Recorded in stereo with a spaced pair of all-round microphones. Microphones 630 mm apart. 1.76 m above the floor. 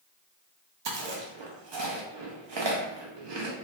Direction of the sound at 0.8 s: 45° right (ahead or behind).